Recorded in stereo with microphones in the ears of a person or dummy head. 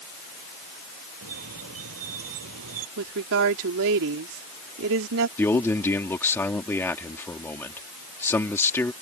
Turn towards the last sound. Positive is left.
turn(degrees=15)  # may be behind; listen again after turning